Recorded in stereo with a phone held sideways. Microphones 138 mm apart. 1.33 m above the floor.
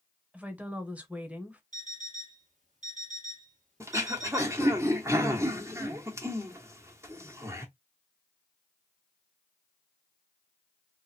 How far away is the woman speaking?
About 1.1 m.